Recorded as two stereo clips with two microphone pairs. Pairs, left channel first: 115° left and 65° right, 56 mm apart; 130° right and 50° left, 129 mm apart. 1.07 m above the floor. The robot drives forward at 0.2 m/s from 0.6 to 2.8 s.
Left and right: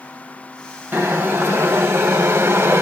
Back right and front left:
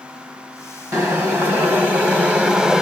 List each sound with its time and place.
0.9 s boiling: 20° right, 1.0 m; by 2.8 s 35° right, 0.7 m